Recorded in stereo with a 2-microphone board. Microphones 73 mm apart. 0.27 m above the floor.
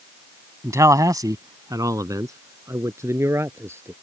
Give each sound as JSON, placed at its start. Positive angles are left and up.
{"t": 0.6, "sound": "a man speaking", "side_deg": -45}